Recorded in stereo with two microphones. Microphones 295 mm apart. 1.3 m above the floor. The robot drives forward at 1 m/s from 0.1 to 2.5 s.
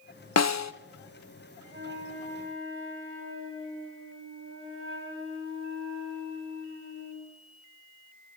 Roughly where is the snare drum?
Left.